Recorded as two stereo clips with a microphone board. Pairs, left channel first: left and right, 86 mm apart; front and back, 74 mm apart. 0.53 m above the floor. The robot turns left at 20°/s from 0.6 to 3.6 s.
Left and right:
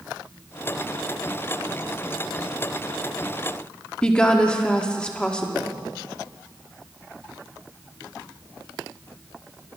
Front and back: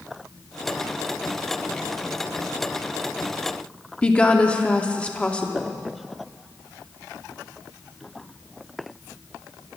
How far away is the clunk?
I don't hear a clunk.